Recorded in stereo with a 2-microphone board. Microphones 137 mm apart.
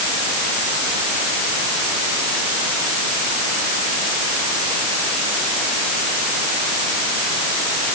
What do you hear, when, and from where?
Only background noise.